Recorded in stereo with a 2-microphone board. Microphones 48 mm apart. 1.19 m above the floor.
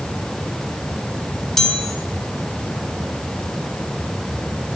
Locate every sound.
1.6 s a chime: 10° left (ahead or behind), 1.7 m